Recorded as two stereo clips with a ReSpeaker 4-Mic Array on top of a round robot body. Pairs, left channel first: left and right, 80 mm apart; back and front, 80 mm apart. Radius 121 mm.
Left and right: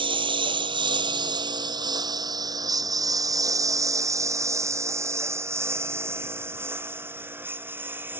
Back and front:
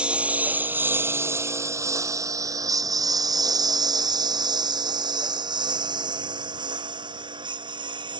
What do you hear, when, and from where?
0.0 s a lawn mower: 80° right; by 8.2 s 25° right